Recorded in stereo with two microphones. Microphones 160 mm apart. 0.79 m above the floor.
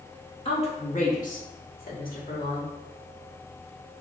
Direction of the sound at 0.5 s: 40° left (ahead or behind).